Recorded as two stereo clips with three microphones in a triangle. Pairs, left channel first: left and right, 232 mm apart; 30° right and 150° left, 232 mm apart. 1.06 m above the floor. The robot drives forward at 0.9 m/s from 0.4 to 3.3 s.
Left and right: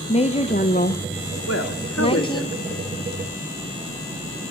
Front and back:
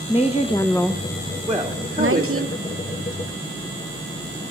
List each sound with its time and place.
0.1 s a woman speaking: 30° left, 1.0 m; by 2.5 s 160° left, 1.3 m
1.5 s a woman speaking: 70° left, 1.7 m; by 2.9 s 115° left, 1.7 m